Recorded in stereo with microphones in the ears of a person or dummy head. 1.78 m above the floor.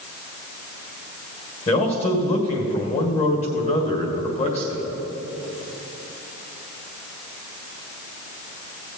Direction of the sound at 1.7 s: 35° left (ahead or behind).